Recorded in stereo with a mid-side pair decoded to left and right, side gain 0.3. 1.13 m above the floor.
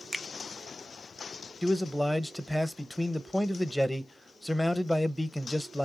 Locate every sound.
0.1 s a finger snap: 15° right, 0.7 m
1.6 s a man speaking: 5° left, 0.7 m